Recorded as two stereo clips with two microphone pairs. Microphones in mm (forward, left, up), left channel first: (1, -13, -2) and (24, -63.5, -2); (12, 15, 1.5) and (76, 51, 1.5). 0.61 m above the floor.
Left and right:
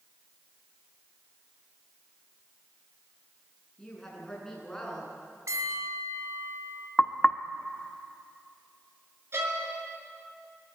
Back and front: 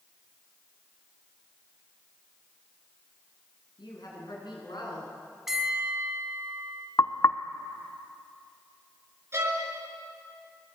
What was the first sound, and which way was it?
A woman speaking, 165° right.